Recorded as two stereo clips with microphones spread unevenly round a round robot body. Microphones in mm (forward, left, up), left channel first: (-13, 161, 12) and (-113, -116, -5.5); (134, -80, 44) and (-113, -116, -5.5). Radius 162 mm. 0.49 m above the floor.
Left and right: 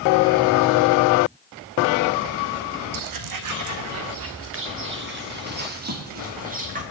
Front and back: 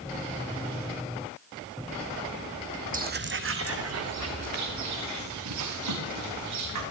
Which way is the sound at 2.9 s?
110° right.